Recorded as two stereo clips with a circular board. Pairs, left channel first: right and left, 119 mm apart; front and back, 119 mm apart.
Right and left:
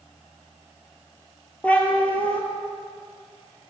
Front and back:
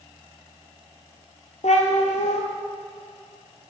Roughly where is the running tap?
I don't hear a running tap.